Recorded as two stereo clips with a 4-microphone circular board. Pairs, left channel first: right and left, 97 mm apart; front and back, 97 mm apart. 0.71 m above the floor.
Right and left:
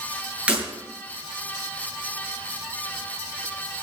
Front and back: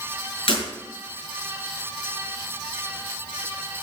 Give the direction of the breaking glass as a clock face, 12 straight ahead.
12 o'clock.